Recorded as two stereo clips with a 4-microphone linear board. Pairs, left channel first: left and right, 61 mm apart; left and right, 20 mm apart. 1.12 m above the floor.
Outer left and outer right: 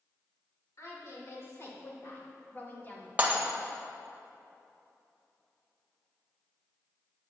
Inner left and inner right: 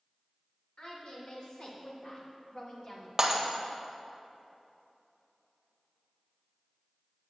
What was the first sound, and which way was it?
A woman speaking, 55° left (ahead or behind).